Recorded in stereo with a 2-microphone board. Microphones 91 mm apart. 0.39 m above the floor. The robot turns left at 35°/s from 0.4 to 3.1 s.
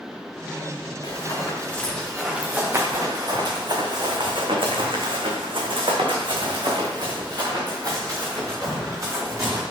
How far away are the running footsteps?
About 2.5 m.